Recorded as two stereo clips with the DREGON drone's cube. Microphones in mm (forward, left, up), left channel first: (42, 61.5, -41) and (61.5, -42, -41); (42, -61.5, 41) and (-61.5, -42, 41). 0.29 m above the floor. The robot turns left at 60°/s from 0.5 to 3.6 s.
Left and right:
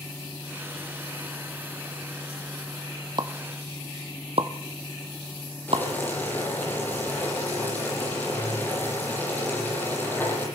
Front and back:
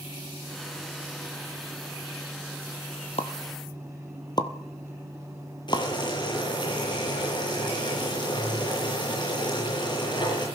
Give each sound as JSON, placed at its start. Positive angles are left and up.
{"t": 3.2, "sound": "a pop", "azimuth_deg": -35, "distance_m": 1.4}
{"t": 5.7, "sound": "boiling", "azimuth_deg": 30, "distance_m": 9.0}